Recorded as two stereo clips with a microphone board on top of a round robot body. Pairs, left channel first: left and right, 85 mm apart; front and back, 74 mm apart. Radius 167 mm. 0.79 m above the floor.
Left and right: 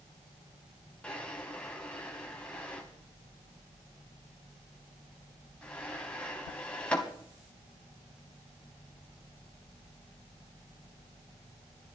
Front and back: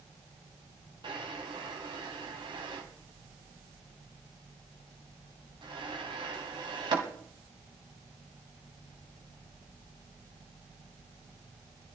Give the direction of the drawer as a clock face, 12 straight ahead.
6 o'clock.